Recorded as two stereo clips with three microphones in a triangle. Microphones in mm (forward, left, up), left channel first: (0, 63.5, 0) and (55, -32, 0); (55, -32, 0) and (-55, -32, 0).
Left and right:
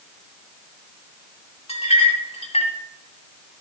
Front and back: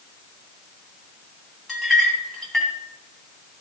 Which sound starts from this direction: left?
A clink, at 1.7 s.